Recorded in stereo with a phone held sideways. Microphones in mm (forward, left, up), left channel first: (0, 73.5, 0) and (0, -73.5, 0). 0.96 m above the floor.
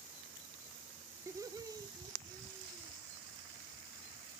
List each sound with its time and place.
1.3 s laughter: 20° right (ahead or behind), 0.6 m; by 3.0 s 25° right (ahead or behind), 2.5 m